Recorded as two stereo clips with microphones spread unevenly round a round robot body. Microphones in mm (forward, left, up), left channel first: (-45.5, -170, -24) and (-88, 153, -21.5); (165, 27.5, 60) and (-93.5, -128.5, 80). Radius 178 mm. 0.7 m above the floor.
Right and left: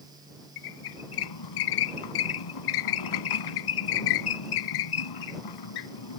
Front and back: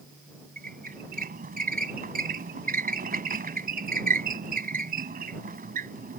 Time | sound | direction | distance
0.6 | a squeak | 85° right | ?